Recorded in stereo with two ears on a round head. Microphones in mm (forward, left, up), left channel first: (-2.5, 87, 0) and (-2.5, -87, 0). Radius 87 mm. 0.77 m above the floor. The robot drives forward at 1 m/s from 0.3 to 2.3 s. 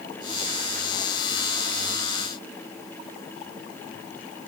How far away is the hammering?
I don't hear hammering.